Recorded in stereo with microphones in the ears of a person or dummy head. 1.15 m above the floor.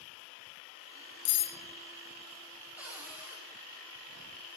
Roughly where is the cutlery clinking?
Left.